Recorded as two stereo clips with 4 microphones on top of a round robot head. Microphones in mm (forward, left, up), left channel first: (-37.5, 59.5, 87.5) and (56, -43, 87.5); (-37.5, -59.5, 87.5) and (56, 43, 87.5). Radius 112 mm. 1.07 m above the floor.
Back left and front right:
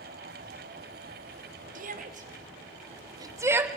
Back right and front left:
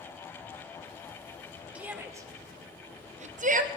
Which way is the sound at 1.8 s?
35° right.